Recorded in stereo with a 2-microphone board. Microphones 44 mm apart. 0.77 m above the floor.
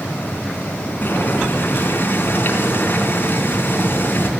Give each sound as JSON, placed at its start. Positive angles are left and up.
{"t": 1.0, "sound": "boiling", "side_deg": 50, "distance_m": 3.5}